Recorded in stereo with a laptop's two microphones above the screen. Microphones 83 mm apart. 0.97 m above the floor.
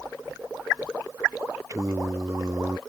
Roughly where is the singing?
Right.